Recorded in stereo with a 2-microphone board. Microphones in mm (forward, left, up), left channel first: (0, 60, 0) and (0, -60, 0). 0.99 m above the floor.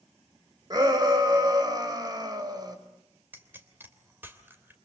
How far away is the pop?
About 3 m.